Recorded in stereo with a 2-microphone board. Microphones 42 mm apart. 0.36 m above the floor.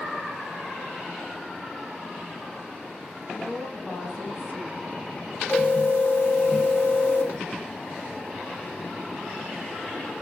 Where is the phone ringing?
70° left (ahead or behind), 1.6 m.